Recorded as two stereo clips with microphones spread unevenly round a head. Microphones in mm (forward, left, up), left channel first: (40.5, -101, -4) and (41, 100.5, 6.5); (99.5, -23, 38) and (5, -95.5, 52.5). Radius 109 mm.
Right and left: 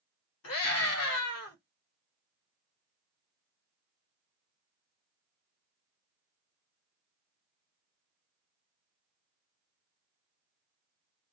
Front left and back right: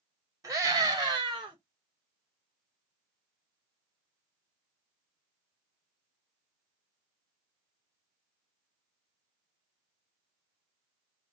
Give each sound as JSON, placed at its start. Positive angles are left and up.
{"t": 0.4, "sound": "a scream", "azimuth_deg": -85, "distance_m": 2.5}